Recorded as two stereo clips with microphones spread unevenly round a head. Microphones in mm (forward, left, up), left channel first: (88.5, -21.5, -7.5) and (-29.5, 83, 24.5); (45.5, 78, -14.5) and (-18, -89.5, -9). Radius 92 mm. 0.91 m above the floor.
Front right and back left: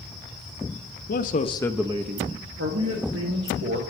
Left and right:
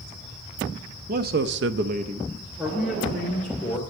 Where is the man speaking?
65° right, 1.0 m; by 3.8 s 150° left, 2.5 m.